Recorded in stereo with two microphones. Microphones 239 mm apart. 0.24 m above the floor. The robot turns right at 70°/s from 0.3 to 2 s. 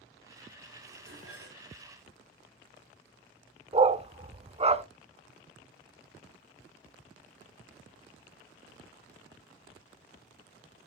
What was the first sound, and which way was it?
Dishes clattering, 135° right.